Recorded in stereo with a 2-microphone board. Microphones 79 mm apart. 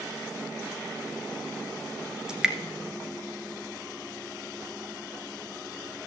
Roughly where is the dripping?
Centre.